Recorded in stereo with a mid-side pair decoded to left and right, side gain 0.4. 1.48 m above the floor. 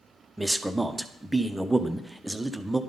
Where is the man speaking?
10° right, 0.7 m.